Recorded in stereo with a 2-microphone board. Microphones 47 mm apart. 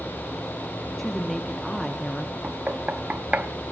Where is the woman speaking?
5° left (ahead or behind), 0.6 m.